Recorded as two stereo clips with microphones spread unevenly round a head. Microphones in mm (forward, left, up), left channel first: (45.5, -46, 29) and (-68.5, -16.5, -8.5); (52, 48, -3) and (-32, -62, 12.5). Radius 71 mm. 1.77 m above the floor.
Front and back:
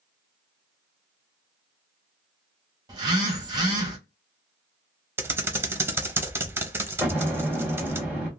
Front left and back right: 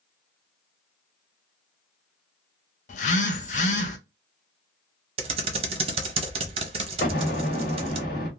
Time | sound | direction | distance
2.9 | a phone buzzing | 95° left | 0.6 m
5.2 | typing on a keyboard | 115° right | 0.6 m
7.0 | an explosion | 75° left | 1.3 m